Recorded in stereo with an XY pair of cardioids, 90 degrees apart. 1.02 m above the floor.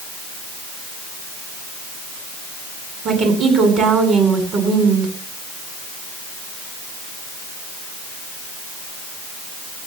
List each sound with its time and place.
3.0 s a woman speaking: 65° right, 10 m